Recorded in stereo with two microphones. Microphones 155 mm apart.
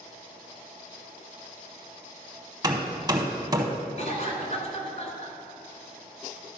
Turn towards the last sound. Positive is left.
turn(degrees=50)  # may be behind; listen again after turning